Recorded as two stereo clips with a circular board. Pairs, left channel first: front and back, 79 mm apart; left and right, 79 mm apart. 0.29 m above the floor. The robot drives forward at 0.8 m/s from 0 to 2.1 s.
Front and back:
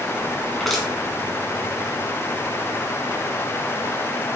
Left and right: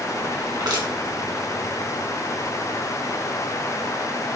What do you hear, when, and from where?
0.6 s crushing: 90° right, 3 m; by 0.9 s 95° right, 3 m